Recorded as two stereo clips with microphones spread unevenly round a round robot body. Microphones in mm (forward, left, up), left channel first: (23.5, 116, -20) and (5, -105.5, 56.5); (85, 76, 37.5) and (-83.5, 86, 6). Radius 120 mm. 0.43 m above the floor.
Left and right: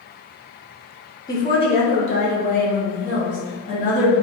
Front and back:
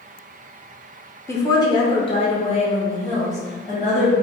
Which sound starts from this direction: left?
A woman speaking, at 1.3 s.